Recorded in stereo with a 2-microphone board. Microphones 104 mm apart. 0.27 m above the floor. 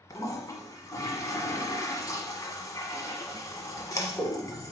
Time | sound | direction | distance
0.1 | a toilet flushing | 35° left (ahead or behind) | 1.3 m